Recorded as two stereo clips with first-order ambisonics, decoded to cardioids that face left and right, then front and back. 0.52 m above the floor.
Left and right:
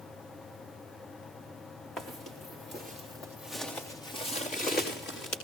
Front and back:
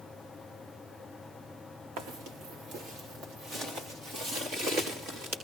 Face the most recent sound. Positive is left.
turn(degrees=145)